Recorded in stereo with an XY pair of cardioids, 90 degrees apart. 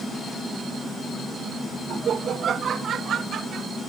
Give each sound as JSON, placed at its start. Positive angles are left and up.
{"t": 1.9, "sound": "laughter", "azimuth_deg": -60}